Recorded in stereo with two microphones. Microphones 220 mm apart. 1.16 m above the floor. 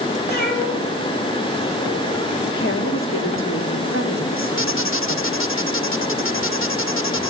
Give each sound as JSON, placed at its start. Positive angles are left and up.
{"t": 0.3, "sound": "a cat meowing", "side_deg": 45, "distance_m": 8.0}
{"t": 2.6, "sound": "a woman speaking", "side_deg": 70, "distance_m": 3.0}
{"t": 4.6, "sound": "a squeak", "side_deg": 70, "distance_m": 0.8}